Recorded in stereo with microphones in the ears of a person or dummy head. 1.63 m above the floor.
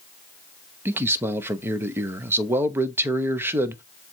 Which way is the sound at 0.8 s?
15° right (ahead or behind).